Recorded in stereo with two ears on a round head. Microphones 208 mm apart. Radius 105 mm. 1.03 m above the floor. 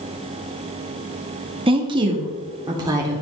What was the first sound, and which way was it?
A woman speaking, 25° right (ahead or behind).